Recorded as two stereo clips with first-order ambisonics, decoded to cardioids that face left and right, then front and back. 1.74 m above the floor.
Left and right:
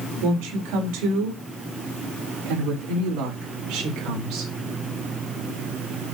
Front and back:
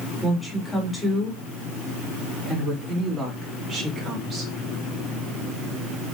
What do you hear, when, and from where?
0.2 s a woman speaking: 85° right, 5 m; by 4.5 s 120° right, 6 m